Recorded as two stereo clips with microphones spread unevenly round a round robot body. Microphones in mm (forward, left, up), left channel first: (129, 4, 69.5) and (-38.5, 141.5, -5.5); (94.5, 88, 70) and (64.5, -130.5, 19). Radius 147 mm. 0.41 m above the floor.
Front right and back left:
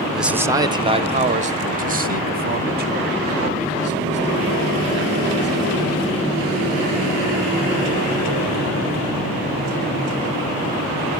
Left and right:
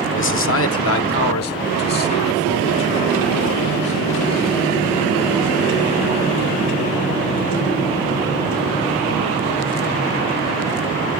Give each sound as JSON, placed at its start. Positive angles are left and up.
{"t": 0.1, "sound": "a man speaking", "azimuth_deg": 75, "distance_m": 0.9}